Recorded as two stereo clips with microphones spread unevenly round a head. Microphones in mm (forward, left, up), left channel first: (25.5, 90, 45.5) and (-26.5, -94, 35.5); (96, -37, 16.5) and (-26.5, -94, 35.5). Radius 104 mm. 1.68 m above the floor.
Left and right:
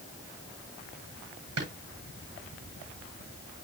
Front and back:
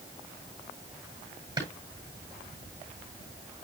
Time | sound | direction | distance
1.6 | a drawer | 95° right | 8 m